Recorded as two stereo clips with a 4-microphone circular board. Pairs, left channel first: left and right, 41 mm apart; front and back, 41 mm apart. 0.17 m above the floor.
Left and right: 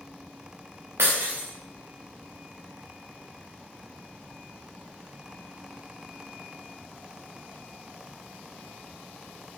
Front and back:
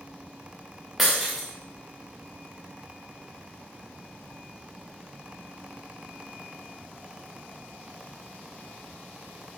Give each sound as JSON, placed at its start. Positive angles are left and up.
{"t": 1.0, "sound": "breaking glass", "azimuth_deg": -95, "distance_m": 3.0}